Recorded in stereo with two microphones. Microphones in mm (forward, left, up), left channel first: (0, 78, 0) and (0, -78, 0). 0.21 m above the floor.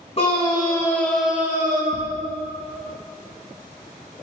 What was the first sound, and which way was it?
A scream, 40° left (ahead or behind).